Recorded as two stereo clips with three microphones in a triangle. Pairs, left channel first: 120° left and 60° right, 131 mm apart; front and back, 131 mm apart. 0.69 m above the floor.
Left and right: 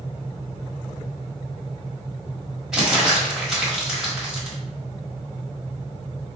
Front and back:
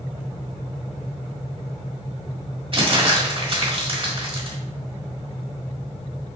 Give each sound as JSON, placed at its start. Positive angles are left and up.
{"t": 2.7, "sound": "crumpling", "azimuth_deg": -145, "distance_m": 1.5}